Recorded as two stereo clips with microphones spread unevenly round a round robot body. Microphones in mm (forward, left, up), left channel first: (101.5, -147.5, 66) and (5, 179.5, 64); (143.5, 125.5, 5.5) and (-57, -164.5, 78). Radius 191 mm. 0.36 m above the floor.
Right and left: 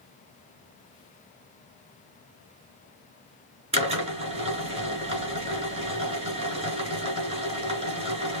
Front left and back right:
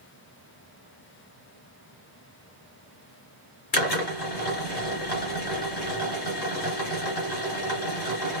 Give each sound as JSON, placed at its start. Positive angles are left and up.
{"t": 3.7, "sound": "a drill", "azimuth_deg": 35, "distance_m": 3.0}